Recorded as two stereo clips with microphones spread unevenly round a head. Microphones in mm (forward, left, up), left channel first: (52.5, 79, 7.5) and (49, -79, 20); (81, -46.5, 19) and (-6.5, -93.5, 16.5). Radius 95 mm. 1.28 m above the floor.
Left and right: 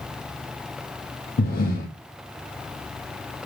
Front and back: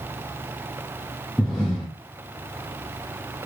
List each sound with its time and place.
1.4 s breathing: 115° left, 1.1 m